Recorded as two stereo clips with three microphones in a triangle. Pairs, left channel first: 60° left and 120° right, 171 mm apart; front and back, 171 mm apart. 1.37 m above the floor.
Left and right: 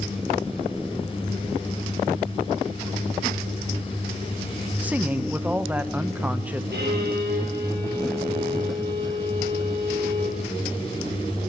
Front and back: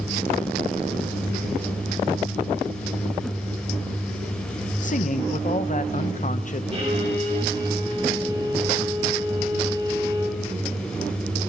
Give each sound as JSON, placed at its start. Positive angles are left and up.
{"t": 4.8, "sound": "a man speaking", "azimuth_deg": -40, "distance_m": 0.8}
{"t": 6.7, "sound": "a violin", "azimuth_deg": -130, "distance_m": 6.0}